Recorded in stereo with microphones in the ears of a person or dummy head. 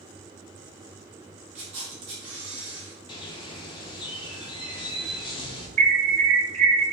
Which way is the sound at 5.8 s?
35° right (ahead or behind).